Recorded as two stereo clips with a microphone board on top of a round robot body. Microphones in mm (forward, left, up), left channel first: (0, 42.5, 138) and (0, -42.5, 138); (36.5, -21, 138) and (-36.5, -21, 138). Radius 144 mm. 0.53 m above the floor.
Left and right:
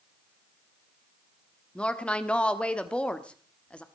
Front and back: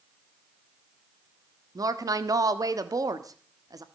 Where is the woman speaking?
165° left, 1.7 m.